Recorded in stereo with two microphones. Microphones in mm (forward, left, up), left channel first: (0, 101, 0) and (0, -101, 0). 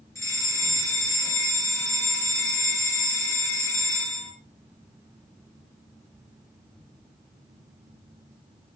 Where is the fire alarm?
15° left (ahead or behind), 5 m.